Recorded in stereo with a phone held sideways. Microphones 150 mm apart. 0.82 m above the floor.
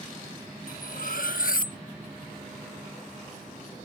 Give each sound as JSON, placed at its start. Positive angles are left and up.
{"t": 0.7, "sound": "cutlery clinking", "side_deg": 70}